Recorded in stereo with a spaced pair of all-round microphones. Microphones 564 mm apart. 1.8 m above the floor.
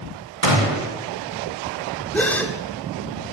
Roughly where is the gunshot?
Right.